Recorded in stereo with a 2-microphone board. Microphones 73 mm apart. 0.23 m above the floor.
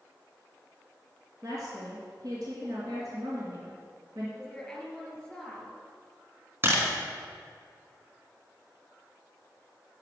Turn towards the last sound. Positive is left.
turn(degrees=-35)  # may be behind; listen again after turning